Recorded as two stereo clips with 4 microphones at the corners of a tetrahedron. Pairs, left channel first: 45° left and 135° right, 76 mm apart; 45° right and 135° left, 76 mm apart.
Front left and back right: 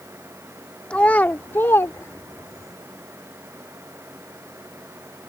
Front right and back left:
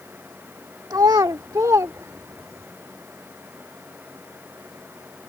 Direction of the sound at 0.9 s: 120° left.